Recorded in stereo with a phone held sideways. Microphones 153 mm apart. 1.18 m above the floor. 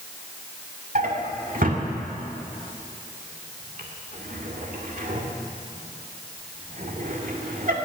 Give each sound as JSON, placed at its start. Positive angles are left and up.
{"t": 0.9, "sound": "a drawer", "side_deg": -65, "distance_m": 2.0}